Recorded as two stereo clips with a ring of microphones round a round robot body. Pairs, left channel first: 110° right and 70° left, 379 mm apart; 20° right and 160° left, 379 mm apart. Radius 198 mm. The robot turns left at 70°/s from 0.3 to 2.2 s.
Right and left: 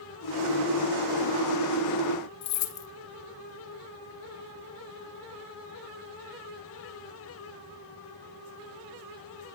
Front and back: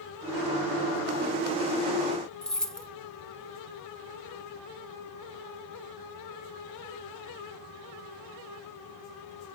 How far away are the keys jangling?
About 1.9 m.